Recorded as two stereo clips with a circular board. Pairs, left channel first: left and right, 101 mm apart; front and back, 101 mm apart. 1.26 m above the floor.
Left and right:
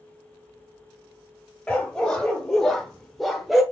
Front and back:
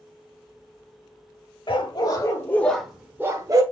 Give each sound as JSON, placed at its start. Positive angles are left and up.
{"t": 1.7, "sound": "a dog barking", "azimuth_deg": 10, "distance_m": 1.4}